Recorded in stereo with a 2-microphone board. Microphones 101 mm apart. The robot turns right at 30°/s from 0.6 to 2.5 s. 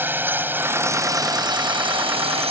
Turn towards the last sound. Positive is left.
turn(degrees=-105)